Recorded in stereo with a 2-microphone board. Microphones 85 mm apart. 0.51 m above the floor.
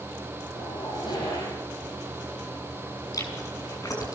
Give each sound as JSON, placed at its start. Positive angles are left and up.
{"t": 0.5, "sound": "a zipper", "side_deg": 60, "distance_m": 9.5}
{"t": 3.1, "sound": "chewing", "side_deg": 45, "distance_m": 6.0}